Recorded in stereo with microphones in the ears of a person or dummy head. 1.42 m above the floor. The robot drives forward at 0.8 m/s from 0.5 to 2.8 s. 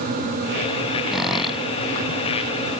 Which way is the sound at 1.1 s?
5° right (ahead or behind).